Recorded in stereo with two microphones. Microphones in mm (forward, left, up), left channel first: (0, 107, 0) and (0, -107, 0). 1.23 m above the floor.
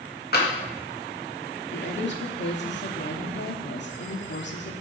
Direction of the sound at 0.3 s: 50° left (ahead or behind).